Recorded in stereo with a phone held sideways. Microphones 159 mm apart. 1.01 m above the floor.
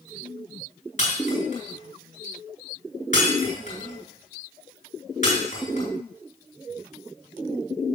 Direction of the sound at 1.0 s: 55° left (ahead or behind).